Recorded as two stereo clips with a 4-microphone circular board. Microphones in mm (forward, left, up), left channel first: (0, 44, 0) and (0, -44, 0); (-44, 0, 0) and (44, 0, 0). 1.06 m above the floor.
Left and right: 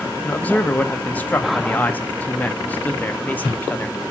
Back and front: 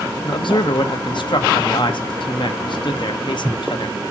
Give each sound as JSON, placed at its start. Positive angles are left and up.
{"t": 0.2, "sound": "a man speaking", "azimuth_deg": 160, "distance_m": 1.0}